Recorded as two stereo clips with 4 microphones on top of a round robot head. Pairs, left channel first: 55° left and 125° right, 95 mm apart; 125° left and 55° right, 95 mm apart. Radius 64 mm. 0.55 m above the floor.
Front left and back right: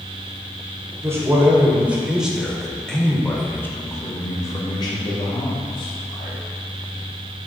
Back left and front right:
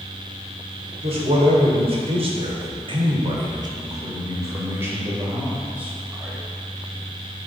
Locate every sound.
1.0 s a man speaking: 60° right, 1.9 m; by 6.4 s 25° left, 2.5 m